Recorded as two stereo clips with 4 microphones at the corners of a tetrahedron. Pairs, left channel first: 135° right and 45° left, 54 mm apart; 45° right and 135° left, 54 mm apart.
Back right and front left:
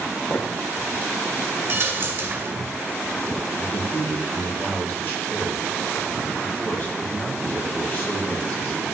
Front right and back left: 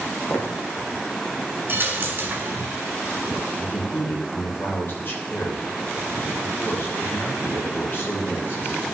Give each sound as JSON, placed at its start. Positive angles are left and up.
{"t": 0.3, "sound": "footsteps", "azimuth_deg": -85, "distance_m": 2.5}
{"t": 1.7, "sound": "a dropped coin", "azimuth_deg": 90, "distance_m": 1.5}
{"t": 3.6, "sound": "a man speaking", "azimuth_deg": -90, "distance_m": 3.5}